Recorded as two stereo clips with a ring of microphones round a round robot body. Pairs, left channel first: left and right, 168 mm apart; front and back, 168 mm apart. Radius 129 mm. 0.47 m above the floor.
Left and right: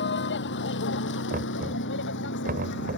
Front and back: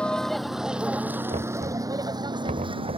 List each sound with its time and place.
0.0 s a vehicle: 85° left; by 3.0 s 125° left
1.3 s knocking: 125° right